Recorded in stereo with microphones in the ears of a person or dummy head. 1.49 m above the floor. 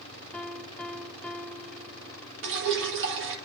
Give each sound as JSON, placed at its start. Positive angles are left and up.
{"t": 0.3, "sound": "a piano", "side_deg": 5, "distance_m": 0.5}
{"t": 2.4, "sound": "dripping", "side_deg": -65, "distance_m": 1.4}